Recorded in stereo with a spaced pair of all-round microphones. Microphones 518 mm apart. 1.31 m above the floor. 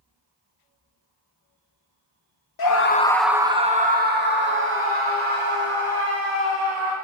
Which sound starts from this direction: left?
A scream, at 2.6 s.